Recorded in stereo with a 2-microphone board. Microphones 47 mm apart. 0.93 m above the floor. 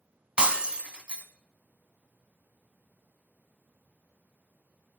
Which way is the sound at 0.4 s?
25° right (ahead or behind).